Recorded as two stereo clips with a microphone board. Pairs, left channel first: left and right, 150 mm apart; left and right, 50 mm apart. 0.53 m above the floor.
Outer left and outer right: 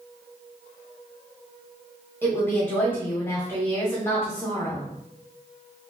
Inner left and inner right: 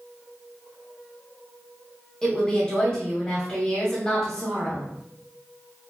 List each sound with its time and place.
2.2 s a woman speaking: 15° left (ahead or behind), 1.0 m